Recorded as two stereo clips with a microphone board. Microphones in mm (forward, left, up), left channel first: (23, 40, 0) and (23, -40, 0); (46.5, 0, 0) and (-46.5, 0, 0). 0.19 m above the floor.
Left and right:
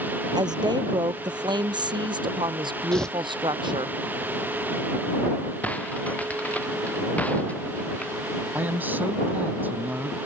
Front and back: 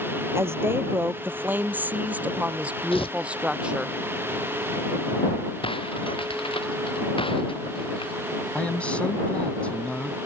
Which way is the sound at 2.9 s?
10° left.